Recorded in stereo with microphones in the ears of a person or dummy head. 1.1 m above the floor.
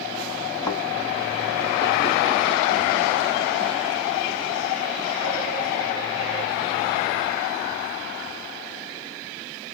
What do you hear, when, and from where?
0.7 s a thud: 15° left (ahead or behind), 1.6 m